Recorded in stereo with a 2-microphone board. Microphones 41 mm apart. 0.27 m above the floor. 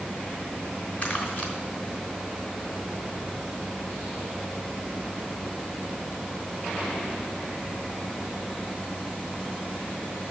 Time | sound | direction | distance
1.0 | crumpling | 40° left (ahead or behind) | 3 m